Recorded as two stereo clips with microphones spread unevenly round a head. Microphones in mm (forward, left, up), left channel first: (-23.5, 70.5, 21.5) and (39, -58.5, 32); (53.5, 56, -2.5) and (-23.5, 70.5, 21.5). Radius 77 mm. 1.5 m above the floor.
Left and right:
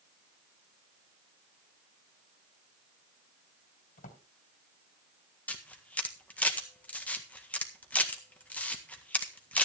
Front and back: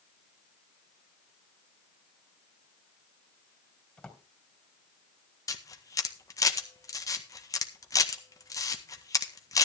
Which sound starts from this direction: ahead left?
A camera shutter, at 5.5 s.